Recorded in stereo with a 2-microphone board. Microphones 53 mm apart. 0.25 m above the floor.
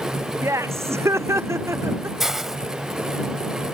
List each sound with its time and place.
0.4 s laughter: 60° right (ahead or behind)
2.2 s a hiss: 5° right (ahead or behind)